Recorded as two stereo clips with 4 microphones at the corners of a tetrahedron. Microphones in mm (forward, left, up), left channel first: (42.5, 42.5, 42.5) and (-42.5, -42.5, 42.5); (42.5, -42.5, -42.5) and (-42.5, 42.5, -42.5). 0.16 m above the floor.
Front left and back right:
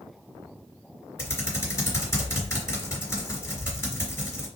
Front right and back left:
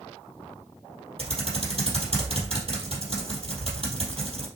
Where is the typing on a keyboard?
110° left, 3 m.